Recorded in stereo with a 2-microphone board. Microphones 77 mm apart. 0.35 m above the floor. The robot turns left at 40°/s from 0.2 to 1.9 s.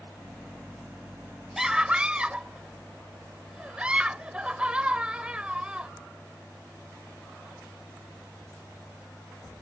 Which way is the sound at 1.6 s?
5° right (ahead or behind).